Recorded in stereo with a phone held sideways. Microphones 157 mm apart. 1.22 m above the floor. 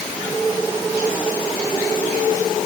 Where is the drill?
I don't hear a drill.